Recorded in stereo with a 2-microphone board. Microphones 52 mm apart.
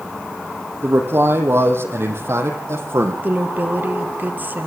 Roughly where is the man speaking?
Right.